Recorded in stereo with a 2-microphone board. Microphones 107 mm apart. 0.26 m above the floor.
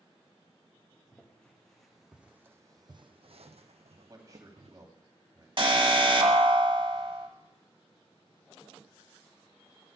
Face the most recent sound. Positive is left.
turn(degrees=-50)  # may be behind; listen again after turning